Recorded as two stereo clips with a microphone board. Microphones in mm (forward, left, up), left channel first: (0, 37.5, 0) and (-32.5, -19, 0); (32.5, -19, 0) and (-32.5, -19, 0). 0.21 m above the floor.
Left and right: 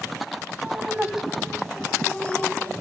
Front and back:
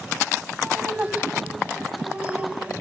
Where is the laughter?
140° right, 1.0 m; by 2.7 s 115° left, 1.5 m.